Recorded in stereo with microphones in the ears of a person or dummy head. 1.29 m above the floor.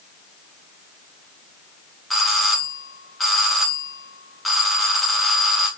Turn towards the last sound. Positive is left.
turn(degrees=0)  # may be behind; listen again after turning